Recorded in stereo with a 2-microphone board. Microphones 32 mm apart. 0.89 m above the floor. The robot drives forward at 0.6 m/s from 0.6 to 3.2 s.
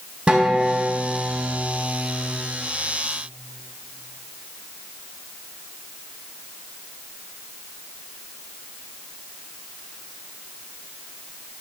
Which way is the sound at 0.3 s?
35° right (ahead or behind).